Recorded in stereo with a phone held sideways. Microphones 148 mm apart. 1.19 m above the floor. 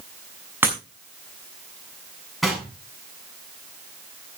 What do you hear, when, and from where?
0.6 s breaking glass: 15° right (ahead or behind), 5.5 m
2.4 s knocking: centre (ahead or behind), 7 m